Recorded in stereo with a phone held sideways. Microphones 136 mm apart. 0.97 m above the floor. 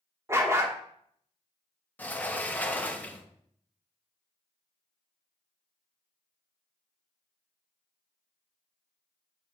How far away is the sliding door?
About 0.8 m.